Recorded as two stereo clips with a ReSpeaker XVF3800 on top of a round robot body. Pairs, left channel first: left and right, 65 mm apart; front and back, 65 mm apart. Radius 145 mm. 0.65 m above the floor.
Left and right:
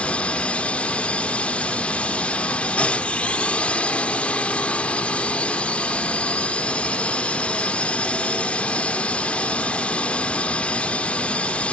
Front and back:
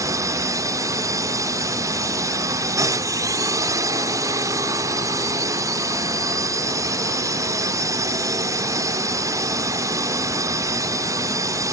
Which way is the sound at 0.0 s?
160° left.